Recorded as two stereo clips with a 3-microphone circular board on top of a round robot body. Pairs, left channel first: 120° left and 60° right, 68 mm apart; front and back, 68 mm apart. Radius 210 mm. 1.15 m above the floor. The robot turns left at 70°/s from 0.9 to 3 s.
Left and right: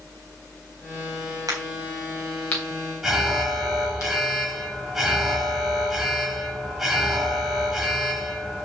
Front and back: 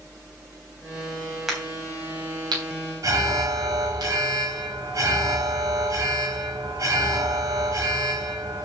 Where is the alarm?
145° right, 3 m.